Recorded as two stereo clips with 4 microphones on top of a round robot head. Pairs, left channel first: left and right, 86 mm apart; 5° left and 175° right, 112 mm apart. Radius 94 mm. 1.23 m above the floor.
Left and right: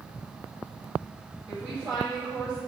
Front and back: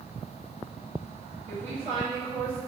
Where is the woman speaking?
150° right, 1.9 m.